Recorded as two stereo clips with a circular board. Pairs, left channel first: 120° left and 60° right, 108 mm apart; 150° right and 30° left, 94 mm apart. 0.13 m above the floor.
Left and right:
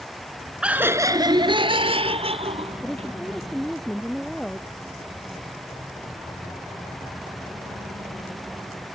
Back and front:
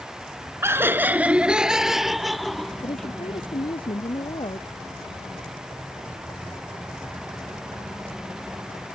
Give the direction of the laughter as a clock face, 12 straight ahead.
12 o'clock.